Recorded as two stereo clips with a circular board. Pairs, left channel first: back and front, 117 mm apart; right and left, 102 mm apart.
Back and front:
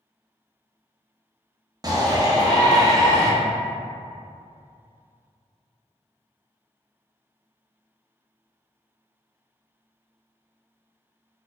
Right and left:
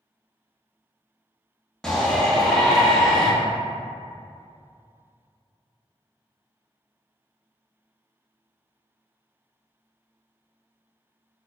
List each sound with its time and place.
1.8 s a shout: 10° right, 0.7 m